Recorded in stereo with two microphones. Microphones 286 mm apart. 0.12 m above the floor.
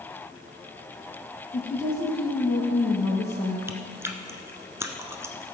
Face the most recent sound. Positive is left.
turn(degrees=-10)  # may be behind; listen again after turning